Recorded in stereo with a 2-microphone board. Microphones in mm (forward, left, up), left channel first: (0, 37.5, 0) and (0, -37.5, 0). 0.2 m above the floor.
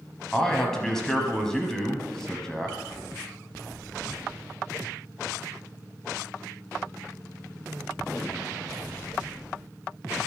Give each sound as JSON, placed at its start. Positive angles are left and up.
{"t": 0.3, "sound": "a man speaking", "side_deg": 5, "distance_m": 1.0}